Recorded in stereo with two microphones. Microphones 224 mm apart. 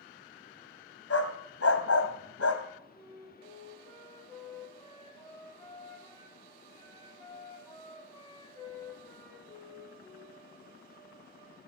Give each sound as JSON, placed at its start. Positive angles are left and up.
{"t": 1.1, "sound": "a dog barking", "side_deg": 70, "distance_m": 1.6}
{"t": 3.0, "sound": "a flute", "side_deg": 15, "distance_m": 3.0}